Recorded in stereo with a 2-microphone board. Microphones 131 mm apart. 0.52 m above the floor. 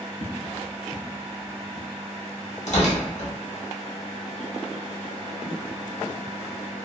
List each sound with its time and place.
0.2 s footsteps: 50° right (ahead or behind), 0.7 m; by 1.9 s 65° left (ahead or behind), 1.1 m
2.7 s tearing paper: 65° left (ahead or behind), 1.0 m